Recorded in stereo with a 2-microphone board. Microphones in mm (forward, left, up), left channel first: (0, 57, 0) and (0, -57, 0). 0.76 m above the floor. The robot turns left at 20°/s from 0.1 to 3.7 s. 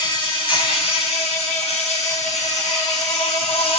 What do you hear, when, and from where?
0.0 s an insect: 135° left, 3.5 m; by 3.8 s 65° left, 3.5 m